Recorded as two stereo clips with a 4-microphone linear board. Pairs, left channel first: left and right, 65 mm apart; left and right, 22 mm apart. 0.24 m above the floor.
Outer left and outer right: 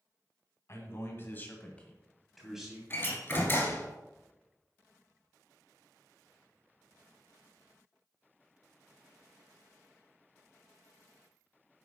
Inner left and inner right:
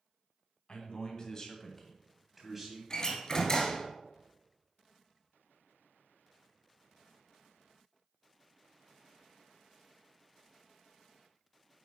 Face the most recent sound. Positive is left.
turn(degrees=30)  # may be behind; listen again after turning